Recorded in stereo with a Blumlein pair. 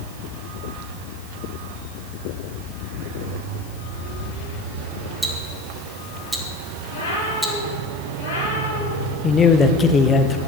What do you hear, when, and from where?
5.2 s ticking: 5° right, 2.0 m
6.9 s a cat meowing: 60° left, 7 m
9.2 s a man speaking: 20° left, 1.1 m